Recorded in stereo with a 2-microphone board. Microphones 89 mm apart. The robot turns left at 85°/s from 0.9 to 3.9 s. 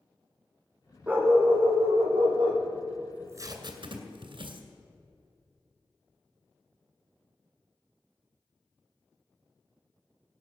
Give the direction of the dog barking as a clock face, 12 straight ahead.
12 o'clock.